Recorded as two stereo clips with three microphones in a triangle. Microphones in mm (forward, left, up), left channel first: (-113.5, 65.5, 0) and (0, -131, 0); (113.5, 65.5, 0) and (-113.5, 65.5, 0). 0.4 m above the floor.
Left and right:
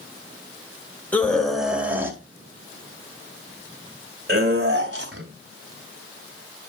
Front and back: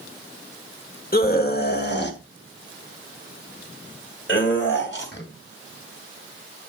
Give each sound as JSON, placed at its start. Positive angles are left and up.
{"t": 1.1, "sound": "a scream", "azimuth_deg": 40, "distance_m": 2.0}